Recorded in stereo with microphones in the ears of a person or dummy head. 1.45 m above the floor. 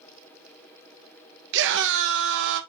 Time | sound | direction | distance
1.5 | a scream | 70° right (ahead or behind) | 1.7 m